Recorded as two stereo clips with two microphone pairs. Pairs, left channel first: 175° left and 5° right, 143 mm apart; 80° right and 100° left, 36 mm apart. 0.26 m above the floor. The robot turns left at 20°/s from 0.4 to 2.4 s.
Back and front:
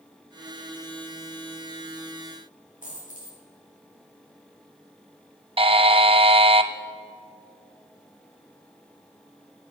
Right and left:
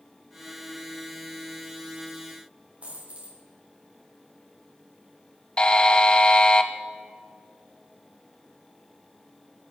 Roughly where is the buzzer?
Ahead right.